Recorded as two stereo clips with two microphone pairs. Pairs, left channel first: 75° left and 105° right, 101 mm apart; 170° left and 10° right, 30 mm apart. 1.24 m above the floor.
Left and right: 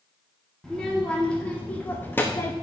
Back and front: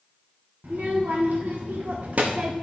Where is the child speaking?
10° right, 1.5 m; by 2.5 s 15° left, 0.7 m.